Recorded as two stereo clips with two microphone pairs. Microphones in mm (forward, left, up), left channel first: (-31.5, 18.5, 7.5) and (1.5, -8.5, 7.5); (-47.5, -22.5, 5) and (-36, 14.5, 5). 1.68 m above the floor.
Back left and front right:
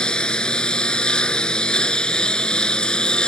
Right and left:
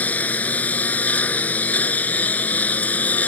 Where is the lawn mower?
150° right.